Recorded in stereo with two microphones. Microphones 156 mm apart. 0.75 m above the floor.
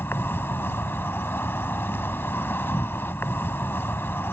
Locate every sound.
0.0 s an insect: 15° left (ahead or behind)